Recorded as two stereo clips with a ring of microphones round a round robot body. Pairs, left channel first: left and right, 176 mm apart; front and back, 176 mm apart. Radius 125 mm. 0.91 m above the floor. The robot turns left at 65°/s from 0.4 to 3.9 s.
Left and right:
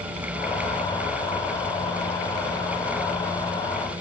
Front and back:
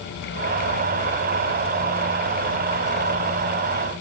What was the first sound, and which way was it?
Only background noise.